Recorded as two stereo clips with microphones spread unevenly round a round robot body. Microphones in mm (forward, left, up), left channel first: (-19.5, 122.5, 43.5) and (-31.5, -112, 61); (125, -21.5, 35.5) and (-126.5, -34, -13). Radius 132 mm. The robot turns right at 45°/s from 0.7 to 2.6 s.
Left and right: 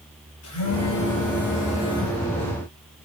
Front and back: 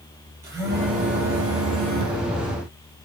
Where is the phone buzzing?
100° left, 8 m; by 2.2 s 170° left, 8 m.